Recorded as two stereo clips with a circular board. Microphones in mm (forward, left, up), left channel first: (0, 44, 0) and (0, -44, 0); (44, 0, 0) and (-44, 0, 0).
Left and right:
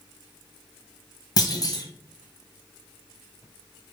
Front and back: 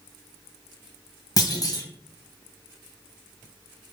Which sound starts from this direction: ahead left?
A clunk, at 1.4 s.